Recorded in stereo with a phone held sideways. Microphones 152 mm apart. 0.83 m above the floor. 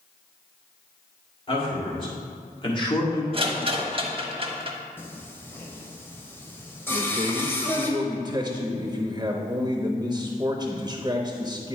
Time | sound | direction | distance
1.5 | a man speaking | 35° left (ahead or behind) | 3 m
3.3 | a rattle | 35° right (ahead or behind) | 1.0 m
5.0 | singing | 15° left (ahead or behind) | 1.2 m
6.9 | a man speaking | 25° right (ahead or behind) | 0.7 m